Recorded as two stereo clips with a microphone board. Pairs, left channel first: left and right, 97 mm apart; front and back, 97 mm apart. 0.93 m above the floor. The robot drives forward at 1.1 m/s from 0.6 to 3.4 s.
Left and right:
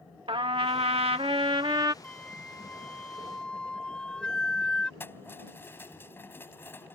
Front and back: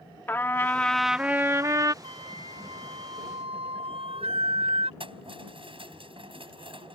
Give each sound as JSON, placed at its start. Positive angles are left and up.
{"t": 0.3, "sound": "a trumpet", "azimuth_deg": -70}
{"t": 2.0, "sound": "a flute", "azimuth_deg": 170}
{"t": 5.0, "sound": "keys jangling", "azimuth_deg": 155}